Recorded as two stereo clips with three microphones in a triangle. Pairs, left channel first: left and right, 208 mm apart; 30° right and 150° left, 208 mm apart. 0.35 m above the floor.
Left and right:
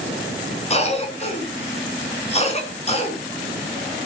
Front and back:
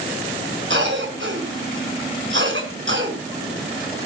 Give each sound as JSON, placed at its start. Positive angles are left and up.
{"t": 0.7, "sound": "a cough", "azimuth_deg": 145, "distance_m": 4.5}